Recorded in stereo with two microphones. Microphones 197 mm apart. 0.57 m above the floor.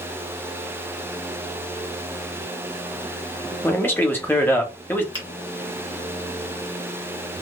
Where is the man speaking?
10° left (ahead or behind), 0.7 m.